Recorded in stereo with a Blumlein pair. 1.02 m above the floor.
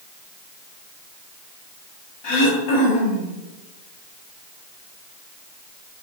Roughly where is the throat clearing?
Ahead left.